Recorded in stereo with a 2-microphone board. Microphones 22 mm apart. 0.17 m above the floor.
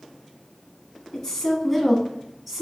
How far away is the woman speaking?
About 1.1 m.